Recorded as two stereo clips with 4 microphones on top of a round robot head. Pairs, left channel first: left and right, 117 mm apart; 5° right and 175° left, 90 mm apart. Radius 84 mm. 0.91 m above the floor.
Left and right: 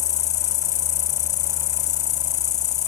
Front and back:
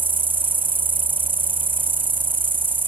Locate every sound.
0.0 s an insect: 105° left